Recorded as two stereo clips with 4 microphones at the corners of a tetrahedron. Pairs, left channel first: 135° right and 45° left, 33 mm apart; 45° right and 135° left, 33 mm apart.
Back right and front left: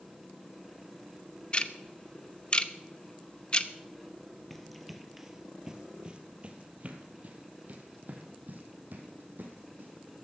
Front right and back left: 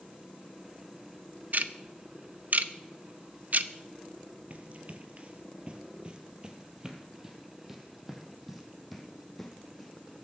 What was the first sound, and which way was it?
Ticking, 170° left.